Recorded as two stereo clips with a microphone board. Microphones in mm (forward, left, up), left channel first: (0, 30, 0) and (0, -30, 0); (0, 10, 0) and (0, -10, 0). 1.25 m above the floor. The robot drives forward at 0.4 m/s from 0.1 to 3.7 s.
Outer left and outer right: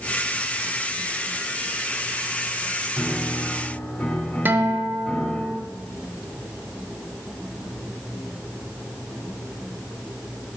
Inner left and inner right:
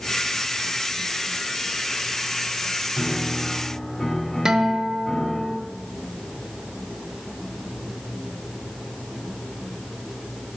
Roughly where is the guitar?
Right.